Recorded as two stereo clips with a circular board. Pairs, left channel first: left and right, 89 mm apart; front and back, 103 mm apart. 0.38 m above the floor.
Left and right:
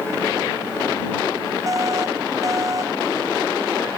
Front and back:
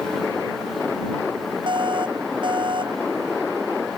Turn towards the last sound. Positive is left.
turn(degrees=-140)